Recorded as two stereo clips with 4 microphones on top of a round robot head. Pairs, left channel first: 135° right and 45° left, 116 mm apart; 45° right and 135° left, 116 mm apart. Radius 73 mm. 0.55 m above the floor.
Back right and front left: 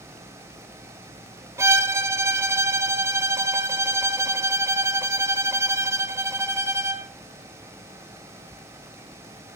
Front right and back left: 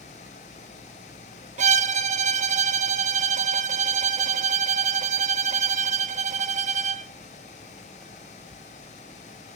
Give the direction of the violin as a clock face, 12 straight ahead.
8 o'clock.